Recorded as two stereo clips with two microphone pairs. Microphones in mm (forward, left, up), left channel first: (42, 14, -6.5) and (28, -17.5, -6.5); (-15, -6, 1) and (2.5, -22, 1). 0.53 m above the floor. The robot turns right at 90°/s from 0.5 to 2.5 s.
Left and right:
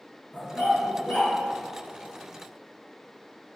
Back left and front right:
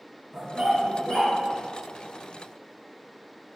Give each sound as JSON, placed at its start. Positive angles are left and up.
{"t": 0.3, "sound": "a dog barking", "azimuth_deg": 25, "distance_m": 2.5}